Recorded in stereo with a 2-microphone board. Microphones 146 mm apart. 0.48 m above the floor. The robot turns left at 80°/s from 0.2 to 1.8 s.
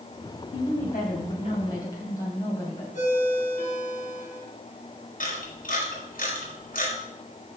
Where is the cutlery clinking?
No cutlery clinking in this recording.